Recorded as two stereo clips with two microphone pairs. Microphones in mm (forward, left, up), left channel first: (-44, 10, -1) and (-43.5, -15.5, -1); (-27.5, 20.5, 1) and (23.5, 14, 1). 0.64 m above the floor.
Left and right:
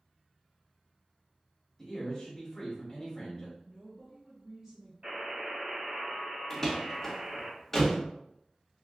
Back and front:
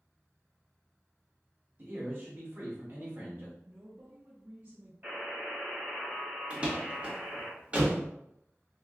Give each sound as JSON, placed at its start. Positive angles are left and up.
{"t": 1.8, "sound": "a man speaking", "azimuth_deg": 35, "distance_m": 1.0}
{"t": 3.6, "sound": "a woman speaking", "azimuth_deg": -35, "distance_m": 0.8}
{"t": 5.0, "sound": "a buzzer", "azimuth_deg": -60, "distance_m": 1.8}
{"t": 6.5, "sound": "a door slam", "azimuth_deg": 30, "distance_m": 0.7}